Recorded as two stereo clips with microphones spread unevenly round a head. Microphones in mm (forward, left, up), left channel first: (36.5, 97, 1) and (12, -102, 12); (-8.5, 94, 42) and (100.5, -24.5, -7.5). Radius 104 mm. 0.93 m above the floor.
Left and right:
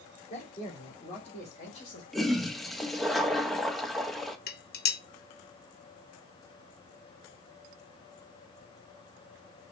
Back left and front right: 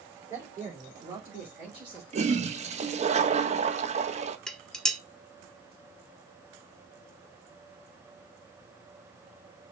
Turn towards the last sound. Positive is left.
turn(degrees=45)